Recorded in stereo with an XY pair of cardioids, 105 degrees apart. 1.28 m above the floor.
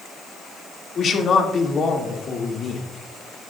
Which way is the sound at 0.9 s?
50° left.